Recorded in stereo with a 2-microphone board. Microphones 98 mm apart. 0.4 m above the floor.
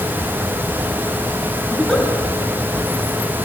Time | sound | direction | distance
1.7 | a giggle | 5° left (ahead or behind) | 4 m